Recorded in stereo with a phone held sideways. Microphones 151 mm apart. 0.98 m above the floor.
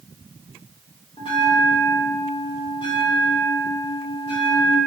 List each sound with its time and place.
1.2 s a bell: 35° left (ahead or behind), 3 m